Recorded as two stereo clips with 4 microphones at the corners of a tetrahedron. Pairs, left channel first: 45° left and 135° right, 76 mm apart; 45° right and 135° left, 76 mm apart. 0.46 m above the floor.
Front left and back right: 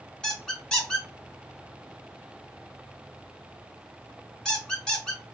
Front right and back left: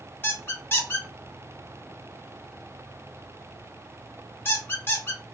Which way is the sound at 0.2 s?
30° right.